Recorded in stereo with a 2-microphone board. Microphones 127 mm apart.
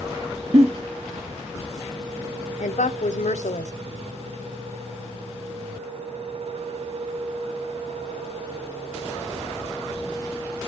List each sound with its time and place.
0.5 s a giggle: 55° right (ahead or behind), 1.0 m
2.6 s a woman speaking: 85° left, 0.8 m